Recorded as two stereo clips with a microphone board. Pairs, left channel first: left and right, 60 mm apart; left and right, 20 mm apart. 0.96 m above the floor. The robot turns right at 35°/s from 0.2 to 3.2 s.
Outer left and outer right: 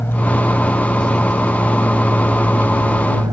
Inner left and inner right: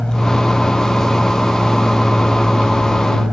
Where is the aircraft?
140° left; by 3.3 s 115° right.